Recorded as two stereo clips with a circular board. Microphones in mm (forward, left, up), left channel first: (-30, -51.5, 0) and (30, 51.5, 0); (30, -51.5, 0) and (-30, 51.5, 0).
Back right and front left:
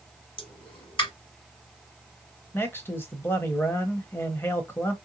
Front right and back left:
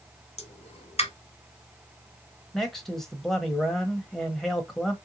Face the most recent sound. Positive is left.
turn(degrees=-140)